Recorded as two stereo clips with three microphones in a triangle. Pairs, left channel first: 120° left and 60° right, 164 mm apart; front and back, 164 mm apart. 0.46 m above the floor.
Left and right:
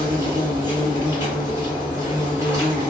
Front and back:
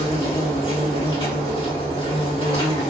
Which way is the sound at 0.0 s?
10° right.